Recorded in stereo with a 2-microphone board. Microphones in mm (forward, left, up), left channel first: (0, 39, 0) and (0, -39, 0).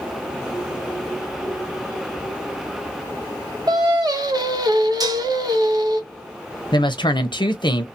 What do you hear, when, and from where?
3.7 s singing: 50° right (ahead or behind), 0.8 m
5.0 s dishes clattering: 50° right (ahead or behind), 0.7 m
6.7 s a woman speaking: 65° left (ahead or behind), 0.7 m